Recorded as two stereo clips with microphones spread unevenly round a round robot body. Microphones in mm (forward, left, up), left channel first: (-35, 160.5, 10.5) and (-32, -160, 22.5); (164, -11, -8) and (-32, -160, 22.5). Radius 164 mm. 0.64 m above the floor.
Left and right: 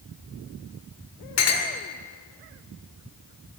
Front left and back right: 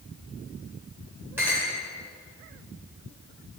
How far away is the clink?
About 1.3 m.